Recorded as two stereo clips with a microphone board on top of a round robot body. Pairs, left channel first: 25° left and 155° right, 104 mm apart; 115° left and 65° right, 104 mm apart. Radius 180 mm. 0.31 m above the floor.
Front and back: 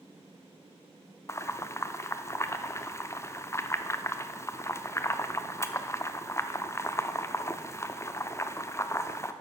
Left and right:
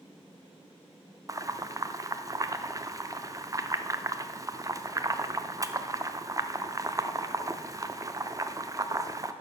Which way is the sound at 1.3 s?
30° right.